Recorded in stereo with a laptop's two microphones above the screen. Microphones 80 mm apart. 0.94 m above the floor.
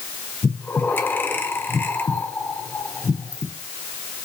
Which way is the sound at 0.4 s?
25° left (ahead or behind).